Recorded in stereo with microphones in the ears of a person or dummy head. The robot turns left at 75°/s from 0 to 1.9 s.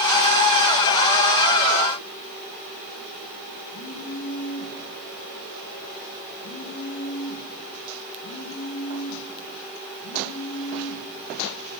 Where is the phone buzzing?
75° left (ahead or behind), 9.5 m.